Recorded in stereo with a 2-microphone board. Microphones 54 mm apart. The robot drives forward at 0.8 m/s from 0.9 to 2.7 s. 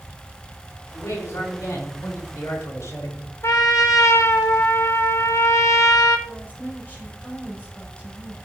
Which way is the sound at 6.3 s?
35° left (ahead or behind).